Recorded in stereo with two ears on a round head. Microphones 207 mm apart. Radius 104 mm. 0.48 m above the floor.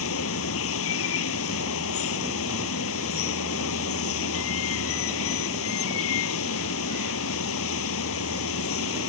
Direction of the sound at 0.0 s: 60° left (ahead or behind).